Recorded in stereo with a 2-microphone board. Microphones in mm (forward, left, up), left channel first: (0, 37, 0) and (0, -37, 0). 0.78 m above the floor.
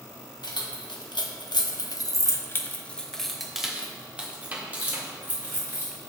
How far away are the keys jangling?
About 1.2 m.